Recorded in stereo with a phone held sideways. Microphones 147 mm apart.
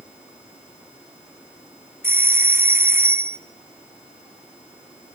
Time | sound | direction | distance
2.0 | a doorbell | 15° right (ahead or behind) | 0.6 m